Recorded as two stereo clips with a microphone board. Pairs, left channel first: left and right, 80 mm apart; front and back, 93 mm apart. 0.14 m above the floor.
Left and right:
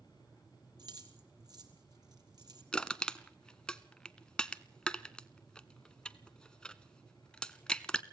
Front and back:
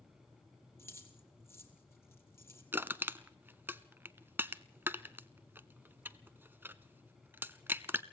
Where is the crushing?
155° left, 0.6 m.